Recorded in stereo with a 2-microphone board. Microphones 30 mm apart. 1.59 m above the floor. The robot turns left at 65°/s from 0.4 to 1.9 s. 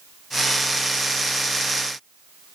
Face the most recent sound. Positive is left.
No sound to turn to.